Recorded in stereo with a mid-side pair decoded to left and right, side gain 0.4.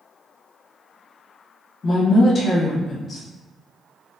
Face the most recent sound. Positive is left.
turn(degrees=50)